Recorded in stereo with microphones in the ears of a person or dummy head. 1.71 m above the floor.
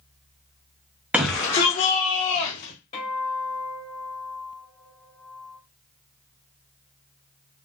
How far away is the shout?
About 0.5 m.